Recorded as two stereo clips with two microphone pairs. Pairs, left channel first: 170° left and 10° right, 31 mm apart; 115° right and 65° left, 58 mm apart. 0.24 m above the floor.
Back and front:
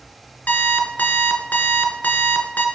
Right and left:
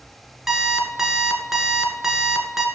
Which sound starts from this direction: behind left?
An alarm clock, at 0.5 s.